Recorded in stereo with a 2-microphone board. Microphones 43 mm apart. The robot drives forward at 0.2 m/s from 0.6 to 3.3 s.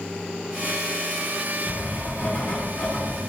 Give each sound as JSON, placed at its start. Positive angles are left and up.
{"t": 1.7, "sound": "writing", "side_deg": 60, "distance_m": 1.4}